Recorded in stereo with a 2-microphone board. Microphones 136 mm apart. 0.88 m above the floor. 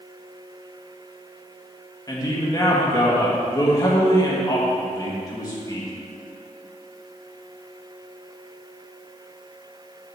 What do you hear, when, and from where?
2.1 s a man speaking: 25° left (ahead or behind), 1.4 m